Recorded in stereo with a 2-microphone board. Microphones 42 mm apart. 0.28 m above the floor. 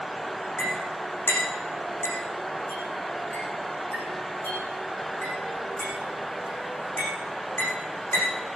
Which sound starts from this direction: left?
A clink, at 0.6 s.